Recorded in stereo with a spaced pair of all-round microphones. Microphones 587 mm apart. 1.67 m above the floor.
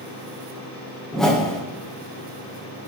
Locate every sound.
1.1 s a whoosh: centre (ahead or behind), 0.9 m